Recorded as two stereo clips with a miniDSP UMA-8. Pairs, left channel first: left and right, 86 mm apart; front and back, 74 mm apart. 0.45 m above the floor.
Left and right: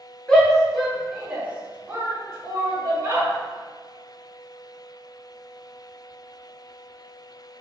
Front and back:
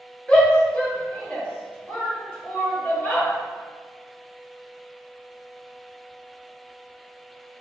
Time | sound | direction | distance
0.3 | a shout | 35° left | 1.2 m